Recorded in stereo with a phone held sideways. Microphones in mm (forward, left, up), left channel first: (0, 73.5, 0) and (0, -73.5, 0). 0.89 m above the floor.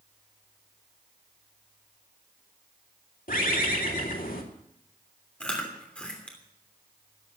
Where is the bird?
70° left (ahead or behind), 3 m.